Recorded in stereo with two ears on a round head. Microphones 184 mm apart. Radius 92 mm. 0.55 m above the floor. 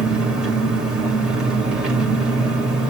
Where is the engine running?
5° right (ahead or behind), 1.8 m.